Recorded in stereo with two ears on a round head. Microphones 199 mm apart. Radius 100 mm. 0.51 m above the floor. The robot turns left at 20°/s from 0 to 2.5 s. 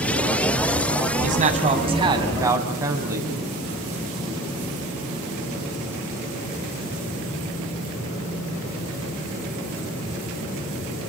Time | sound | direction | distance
1.2 | a man speaking | 40° right (ahead or behind) | 3.5 m